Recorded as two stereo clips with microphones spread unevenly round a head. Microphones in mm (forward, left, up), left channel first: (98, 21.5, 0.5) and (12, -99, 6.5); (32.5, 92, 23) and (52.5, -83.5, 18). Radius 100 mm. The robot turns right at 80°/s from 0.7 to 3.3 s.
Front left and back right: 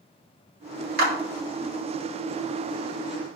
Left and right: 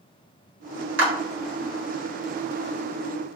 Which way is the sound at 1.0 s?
115° right.